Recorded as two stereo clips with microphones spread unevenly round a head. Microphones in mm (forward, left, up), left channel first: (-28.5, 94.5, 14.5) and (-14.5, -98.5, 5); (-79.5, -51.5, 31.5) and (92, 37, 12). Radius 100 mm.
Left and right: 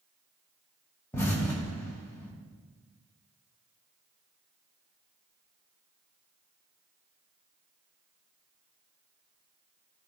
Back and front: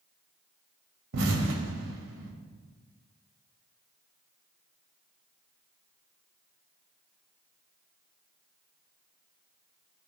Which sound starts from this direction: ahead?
An explosion, at 1.1 s.